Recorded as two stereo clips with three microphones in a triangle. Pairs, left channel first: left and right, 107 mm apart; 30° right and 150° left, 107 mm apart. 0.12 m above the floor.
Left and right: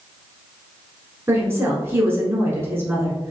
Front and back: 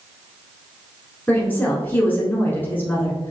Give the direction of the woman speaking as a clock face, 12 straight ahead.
2 o'clock.